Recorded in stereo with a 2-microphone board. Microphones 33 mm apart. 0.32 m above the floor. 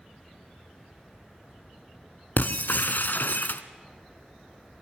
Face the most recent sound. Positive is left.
turn(degrees=70)  # may be behind; listen again after turning